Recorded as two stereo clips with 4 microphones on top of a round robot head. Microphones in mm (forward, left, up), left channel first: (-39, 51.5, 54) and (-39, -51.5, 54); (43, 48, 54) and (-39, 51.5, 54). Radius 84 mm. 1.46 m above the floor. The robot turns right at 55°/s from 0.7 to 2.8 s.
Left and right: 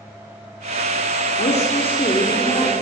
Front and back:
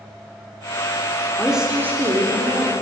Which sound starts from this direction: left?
A woman speaking, at 1.4 s.